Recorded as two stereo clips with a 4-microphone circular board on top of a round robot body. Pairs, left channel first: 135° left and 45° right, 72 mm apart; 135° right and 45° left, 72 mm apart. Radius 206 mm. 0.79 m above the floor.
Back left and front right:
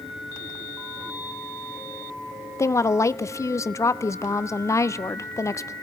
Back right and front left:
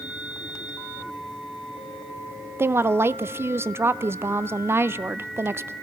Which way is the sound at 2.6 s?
95° left.